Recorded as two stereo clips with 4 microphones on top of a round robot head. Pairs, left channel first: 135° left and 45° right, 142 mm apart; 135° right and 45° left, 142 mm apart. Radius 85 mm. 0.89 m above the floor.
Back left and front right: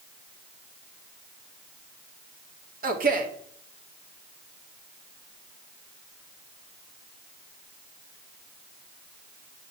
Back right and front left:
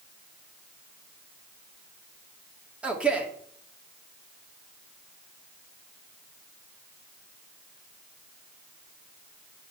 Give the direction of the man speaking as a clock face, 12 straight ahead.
1 o'clock.